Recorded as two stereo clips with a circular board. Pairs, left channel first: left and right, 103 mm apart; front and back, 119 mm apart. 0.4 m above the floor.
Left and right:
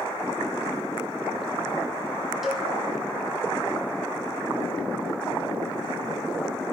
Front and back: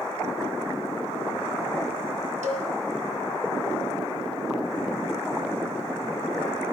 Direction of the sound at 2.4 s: Straight behind.